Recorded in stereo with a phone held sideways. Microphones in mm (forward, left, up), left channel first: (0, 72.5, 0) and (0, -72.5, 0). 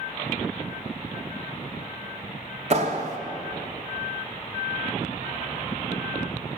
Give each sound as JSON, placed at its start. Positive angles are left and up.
{"t": 2.7, "sound": "a clap", "side_deg": -45, "distance_m": 1.5}